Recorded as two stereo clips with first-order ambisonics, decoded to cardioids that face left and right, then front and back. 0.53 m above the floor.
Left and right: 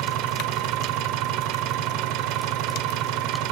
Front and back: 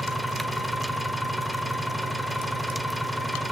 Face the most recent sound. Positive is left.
turn(degrees=-85)